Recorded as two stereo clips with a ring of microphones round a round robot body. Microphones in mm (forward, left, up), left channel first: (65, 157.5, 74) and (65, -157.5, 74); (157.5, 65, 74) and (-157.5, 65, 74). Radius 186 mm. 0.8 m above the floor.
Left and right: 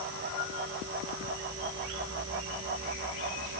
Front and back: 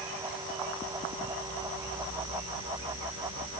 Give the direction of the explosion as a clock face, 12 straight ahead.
No explosion in this recording.